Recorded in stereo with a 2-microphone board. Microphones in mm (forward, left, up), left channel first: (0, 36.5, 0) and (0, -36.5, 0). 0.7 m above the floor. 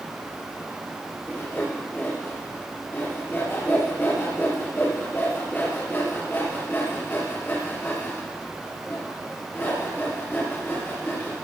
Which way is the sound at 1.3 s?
30° left (ahead or behind).